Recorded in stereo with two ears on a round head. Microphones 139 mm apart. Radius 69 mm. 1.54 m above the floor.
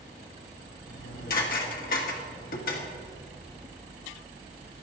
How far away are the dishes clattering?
About 1.9 m.